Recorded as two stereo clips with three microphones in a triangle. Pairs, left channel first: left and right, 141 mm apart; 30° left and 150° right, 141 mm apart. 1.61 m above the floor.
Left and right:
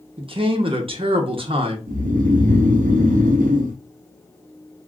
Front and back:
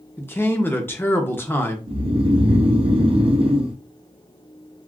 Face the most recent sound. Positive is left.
turn(degrees=-100)